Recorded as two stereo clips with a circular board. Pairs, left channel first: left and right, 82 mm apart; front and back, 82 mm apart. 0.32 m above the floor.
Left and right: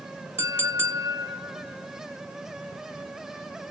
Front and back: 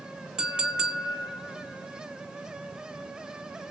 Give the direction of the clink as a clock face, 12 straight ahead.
4 o'clock.